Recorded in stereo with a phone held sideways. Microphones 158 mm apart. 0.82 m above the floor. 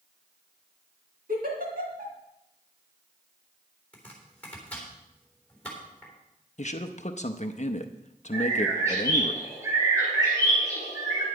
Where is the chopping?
10° left (ahead or behind), 3.5 m.